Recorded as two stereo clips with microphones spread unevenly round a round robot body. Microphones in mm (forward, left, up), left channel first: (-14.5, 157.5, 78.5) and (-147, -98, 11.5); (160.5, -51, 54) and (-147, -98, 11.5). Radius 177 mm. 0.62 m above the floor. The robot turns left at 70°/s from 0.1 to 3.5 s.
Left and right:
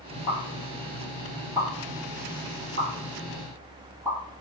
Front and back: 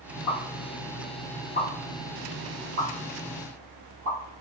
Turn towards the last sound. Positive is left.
turn(degrees=175)